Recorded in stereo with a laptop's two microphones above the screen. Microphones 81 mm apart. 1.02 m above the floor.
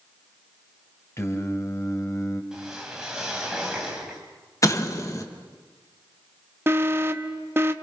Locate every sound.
1.2 s singing: 35° left (ahead or behind), 2.5 m
2.5 s a whoosh: 5° right (ahead or behind), 2.5 m
4.6 s an explosion: 40° left (ahead or behind), 1.2 m
6.7 s an alarm: 30° right (ahead or behind), 0.8 m